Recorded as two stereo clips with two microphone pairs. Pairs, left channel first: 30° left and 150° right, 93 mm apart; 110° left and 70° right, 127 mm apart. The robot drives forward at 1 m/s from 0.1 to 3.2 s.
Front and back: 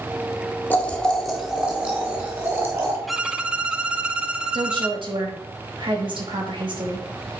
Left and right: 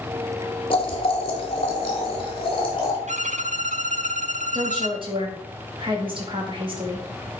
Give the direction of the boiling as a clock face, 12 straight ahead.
9 o'clock.